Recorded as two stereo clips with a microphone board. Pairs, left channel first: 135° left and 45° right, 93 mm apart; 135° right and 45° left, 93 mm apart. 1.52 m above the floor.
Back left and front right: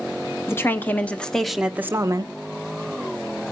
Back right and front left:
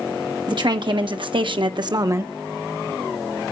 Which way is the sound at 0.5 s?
75° left.